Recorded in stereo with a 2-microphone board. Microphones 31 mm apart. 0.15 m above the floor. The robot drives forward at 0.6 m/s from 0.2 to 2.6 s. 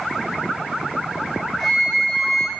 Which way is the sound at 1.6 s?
10° left (ahead or behind).